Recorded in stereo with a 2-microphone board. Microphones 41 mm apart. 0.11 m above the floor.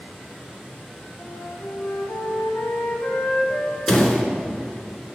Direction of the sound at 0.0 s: Centre (ahead or behind).